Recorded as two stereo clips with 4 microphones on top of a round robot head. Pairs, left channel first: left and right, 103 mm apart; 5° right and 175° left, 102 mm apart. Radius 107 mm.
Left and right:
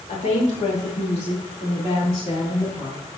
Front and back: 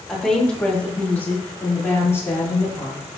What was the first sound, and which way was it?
A woman speaking, 80° left.